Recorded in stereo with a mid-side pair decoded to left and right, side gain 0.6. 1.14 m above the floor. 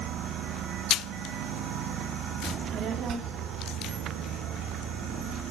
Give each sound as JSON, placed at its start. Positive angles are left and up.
{"t": 2.4, "sound": "a child speaking", "azimuth_deg": -35, "distance_m": 1.9}